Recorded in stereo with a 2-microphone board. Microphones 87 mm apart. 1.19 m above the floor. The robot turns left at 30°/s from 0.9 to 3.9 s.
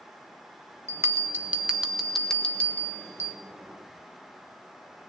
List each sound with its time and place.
0.9 s a bell: 145° right, 1.6 m; by 3.4 s 140° left, 1.6 m